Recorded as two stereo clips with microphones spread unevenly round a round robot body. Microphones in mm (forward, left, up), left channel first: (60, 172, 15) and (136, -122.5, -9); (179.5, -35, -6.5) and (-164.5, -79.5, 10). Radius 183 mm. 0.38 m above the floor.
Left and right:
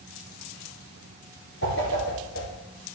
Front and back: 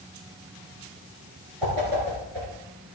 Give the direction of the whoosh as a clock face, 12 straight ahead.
7 o'clock.